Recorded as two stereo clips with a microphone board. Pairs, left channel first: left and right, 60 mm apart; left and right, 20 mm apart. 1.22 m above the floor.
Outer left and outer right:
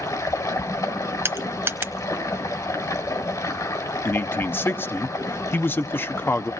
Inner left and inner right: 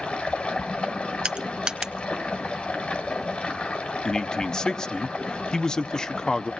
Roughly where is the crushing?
Right.